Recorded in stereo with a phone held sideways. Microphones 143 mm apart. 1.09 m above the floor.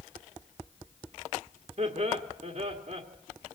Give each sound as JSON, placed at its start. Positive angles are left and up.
{"t": 1.8, "sound": "laughter", "side_deg": -55, "distance_m": 1.8}